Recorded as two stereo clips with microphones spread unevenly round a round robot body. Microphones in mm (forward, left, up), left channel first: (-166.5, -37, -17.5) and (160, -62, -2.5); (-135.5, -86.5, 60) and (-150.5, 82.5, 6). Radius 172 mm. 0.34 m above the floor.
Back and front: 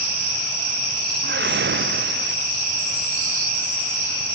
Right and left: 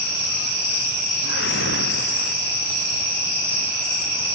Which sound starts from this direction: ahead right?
A whoosh, at 1.2 s.